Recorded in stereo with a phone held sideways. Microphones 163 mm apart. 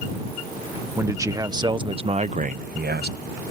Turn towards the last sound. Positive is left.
turn(degrees=-75)  # may be behind; listen again after turning